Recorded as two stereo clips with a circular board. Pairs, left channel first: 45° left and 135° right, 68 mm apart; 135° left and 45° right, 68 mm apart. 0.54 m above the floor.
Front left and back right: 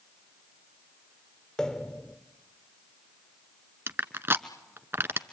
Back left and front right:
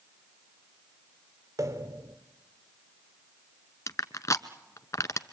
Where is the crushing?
170° left, 1.1 m.